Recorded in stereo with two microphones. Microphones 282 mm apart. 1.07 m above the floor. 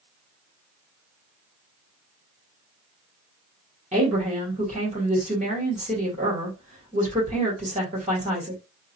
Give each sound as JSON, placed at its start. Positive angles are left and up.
{"t": 3.9, "sound": "a woman speaking", "side_deg": -25, "distance_m": 1.3}